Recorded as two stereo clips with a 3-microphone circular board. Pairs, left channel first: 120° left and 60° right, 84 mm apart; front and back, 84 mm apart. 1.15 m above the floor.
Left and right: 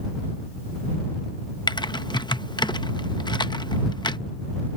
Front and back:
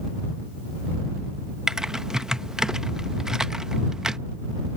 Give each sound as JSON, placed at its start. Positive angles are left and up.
{"t": 1.7, "sound": "typing on a keyboard", "azimuth_deg": 100}